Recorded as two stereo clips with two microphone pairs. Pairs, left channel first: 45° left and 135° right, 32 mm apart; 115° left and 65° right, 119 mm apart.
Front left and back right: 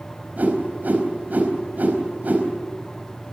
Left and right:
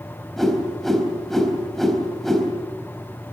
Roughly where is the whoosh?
Behind right.